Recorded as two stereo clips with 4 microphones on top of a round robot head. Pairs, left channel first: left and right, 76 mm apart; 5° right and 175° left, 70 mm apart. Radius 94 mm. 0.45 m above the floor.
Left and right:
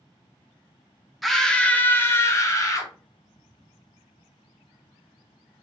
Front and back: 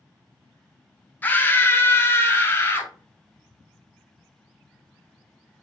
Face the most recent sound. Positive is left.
turn(degrees=50)